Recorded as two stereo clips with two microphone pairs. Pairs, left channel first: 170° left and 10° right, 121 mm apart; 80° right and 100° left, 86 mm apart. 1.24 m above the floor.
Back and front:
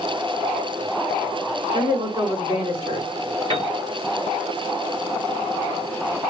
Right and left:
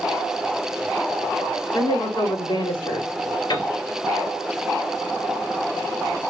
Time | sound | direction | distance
1.7 | a woman speaking | 60° right | 4 m
3.5 | a piano | 60° right | 4.5 m